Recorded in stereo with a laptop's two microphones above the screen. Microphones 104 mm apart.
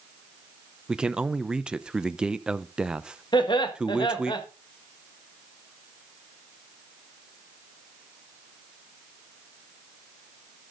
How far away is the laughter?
About 1.4 m.